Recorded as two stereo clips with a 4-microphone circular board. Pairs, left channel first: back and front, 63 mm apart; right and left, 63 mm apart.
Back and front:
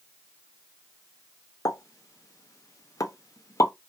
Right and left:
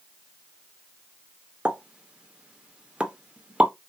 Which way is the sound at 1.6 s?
160° left.